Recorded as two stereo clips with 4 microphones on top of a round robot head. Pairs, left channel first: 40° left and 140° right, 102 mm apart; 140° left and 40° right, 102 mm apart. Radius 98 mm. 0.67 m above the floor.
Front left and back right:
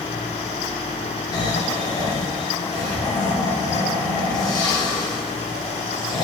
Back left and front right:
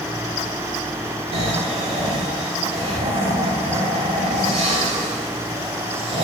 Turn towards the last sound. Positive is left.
turn(degrees=-10)